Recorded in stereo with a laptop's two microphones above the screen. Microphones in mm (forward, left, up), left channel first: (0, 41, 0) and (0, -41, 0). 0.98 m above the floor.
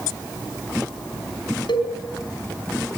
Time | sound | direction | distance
1.7 | a cowbell | 80° left | 4 m